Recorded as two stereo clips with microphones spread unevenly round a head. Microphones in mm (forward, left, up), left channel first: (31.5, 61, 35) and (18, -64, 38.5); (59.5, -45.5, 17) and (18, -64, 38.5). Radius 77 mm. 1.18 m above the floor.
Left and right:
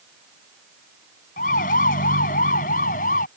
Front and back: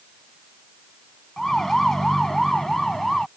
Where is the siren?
115° left.